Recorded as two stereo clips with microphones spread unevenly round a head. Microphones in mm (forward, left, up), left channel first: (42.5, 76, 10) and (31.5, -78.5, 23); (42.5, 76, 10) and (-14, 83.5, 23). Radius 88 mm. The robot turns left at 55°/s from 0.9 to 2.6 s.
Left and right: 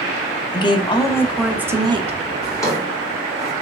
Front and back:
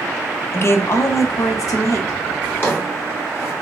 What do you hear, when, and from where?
0.5 s a woman speaking: 25° left, 0.6 m; by 2.2 s 45° right, 0.6 m
2.4 s a drawer: 35° left, 1.2 m; by 3.5 s 25° left, 1.2 m